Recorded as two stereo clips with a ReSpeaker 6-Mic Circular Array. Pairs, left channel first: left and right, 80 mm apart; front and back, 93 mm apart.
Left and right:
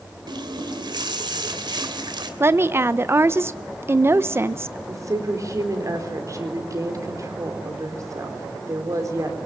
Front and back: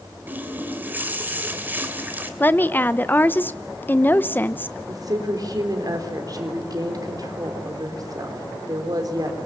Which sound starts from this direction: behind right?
A woman speaking, at 4.9 s.